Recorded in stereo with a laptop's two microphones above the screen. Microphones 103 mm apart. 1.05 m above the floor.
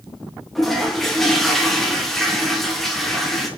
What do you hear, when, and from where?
0.6 s a toilet flushing: centre (ahead or behind), 0.5 m